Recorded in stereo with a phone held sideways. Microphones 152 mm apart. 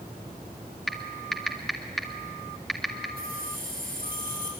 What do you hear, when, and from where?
0.9 s typing on a keyboard: centre (ahead or behind), 2 m
3.2 s keys jangling: 65° right (ahead or behind), 10 m